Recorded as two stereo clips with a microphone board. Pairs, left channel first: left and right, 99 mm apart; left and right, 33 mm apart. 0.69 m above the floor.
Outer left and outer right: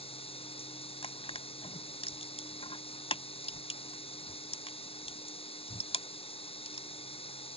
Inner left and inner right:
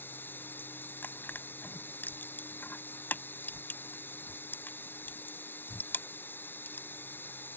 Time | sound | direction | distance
0.0 | running water | 75° left (ahead or behind) | ?
1.0 | crushing | 85° left | ?